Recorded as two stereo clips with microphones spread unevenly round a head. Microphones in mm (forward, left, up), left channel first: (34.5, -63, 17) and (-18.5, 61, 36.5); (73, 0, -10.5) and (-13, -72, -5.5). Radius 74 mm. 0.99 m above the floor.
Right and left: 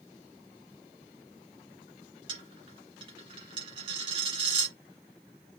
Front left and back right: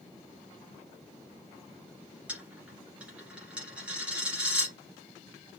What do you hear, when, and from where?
2.3 s a dropped coin: 145° left, 1.3 m